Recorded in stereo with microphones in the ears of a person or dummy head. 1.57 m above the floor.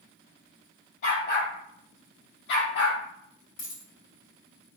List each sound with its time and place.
1.0 s a dog barking: 60° left (ahead or behind), 3.5 m; by 3.0 s 70° left (ahead or behind), 3 m
3.6 s a dropped coin: 75° left (ahead or behind), 3.5 m